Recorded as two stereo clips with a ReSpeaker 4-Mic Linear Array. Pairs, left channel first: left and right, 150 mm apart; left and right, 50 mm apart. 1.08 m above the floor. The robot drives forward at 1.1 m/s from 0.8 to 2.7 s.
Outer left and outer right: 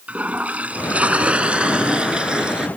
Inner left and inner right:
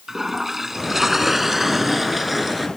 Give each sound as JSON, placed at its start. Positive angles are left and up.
{"t": 0.1, "sound": "a toilet flushing", "side_deg": -10}